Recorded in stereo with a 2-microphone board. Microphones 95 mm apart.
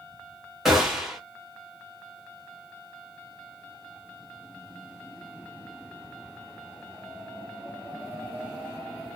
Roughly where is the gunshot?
Centre.